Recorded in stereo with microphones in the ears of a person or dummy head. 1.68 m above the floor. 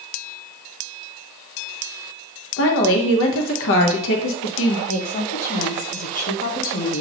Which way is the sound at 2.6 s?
70° left (ahead or behind).